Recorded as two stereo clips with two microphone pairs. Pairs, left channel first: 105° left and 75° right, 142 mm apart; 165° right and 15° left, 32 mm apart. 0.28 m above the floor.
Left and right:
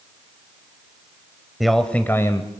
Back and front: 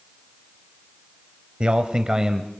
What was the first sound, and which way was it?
A man speaking, 10° left.